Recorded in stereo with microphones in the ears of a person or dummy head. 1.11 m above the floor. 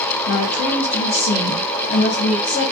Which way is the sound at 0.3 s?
50° left (ahead or behind).